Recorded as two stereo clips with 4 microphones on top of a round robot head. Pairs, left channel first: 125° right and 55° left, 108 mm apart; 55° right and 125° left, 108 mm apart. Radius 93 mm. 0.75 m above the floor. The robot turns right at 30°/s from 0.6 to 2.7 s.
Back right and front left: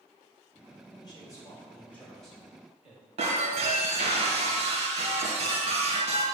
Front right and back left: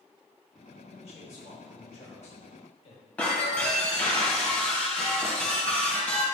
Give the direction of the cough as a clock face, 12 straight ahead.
No cough in this recording.